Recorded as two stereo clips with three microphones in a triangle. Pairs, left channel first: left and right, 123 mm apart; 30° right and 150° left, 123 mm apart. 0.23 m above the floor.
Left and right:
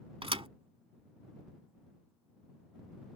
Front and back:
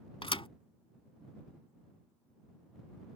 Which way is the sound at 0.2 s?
60° right.